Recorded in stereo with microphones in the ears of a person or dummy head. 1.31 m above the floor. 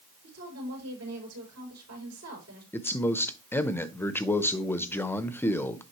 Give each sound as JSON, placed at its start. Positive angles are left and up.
{"t": 0.2, "sound": "a woman speaking", "side_deg": -85, "distance_m": 5.0}
{"t": 2.7, "sound": "a man speaking", "side_deg": 10, "distance_m": 0.6}